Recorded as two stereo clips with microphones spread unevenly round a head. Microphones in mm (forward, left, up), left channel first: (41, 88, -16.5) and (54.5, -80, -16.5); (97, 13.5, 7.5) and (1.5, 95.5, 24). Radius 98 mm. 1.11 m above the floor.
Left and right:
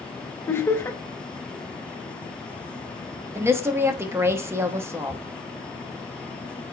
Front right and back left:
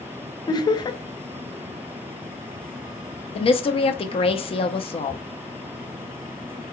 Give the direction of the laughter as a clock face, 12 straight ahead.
11 o'clock.